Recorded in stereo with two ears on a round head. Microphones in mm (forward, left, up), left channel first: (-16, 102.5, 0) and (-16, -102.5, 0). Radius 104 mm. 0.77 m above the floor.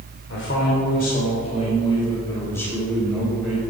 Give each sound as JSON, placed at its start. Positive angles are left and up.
{"t": 0.3, "sound": "a man speaking", "side_deg": 55, "distance_m": 3.0}